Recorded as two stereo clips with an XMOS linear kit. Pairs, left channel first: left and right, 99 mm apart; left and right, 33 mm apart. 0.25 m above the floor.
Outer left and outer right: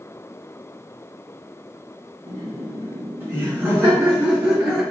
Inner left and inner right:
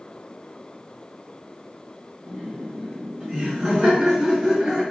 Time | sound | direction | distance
2.3 | laughter | 30° right (ahead or behind) | 2 m